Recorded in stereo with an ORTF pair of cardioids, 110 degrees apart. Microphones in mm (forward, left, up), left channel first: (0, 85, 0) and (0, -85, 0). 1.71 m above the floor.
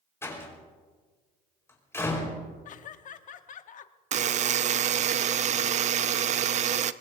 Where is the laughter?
50° left, 1.1 m.